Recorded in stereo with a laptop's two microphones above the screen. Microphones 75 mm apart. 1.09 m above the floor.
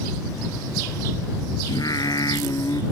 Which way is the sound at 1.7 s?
60° left (ahead or behind).